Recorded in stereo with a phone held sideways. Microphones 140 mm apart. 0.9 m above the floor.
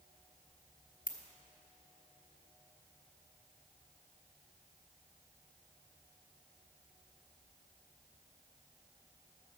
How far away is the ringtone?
About 1.0 m.